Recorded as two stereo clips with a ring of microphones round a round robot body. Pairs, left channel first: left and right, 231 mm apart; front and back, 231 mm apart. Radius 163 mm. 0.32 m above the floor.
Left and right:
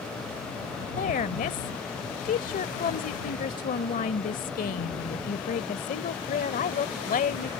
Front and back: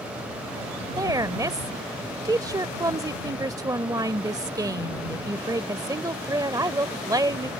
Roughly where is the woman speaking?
Behind left.